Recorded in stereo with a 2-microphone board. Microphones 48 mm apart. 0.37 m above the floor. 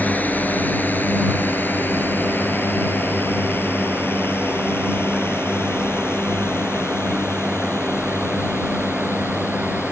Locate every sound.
0.0 s a drone: 35° left (ahead or behind); by 9.9 s 60° left (ahead or behind)